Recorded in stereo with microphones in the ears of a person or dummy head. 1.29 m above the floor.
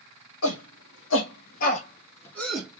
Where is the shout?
75° left (ahead or behind), 1.3 m; by 2.8 s 10° right (ahead or behind), 1.0 m.